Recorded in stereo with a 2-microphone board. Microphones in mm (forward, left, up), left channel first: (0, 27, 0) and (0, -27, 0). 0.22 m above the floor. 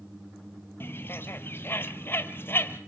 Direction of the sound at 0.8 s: 45° left (ahead or behind).